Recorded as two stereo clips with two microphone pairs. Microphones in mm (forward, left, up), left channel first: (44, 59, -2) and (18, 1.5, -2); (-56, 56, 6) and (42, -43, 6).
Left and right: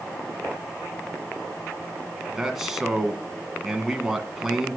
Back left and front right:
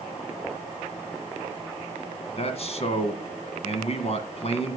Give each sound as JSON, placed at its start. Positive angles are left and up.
{"t": 2.4, "sound": "a man speaking", "azimuth_deg": 160, "distance_m": 2.0}